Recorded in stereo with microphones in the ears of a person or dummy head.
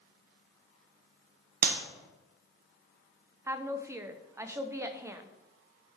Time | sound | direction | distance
1.6 | a clap | 50° right (ahead or behind) | 0.9 m
3.5 | a woman speaking | 15° right (ahead or behind) | 0.6 m